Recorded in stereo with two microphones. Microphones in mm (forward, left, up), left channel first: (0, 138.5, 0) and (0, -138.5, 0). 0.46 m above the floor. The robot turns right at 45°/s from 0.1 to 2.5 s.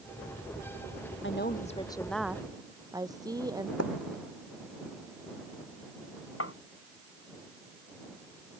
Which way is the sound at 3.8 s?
60° left (ahead or behind).